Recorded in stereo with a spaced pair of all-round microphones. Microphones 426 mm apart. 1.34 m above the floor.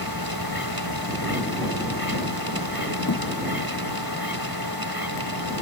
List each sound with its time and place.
0.0 s a machine running: 60° right (ahead or behind)
3.1 s a thud: 50° left (ahead or behind)